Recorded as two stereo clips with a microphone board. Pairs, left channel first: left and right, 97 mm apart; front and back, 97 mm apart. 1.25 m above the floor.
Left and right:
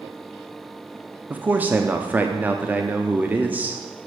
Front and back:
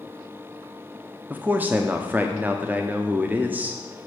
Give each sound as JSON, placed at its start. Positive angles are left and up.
{"t": 1.3, "sound": "a man speaking", "azimuth_deg": -135, "distance_m": 0.5}